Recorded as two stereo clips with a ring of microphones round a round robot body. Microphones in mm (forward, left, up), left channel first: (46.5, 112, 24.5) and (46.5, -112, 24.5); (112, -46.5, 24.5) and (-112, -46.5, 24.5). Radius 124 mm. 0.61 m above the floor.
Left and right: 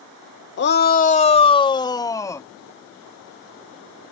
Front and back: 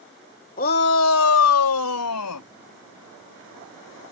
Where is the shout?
55° left; by 2.5 s 10° left.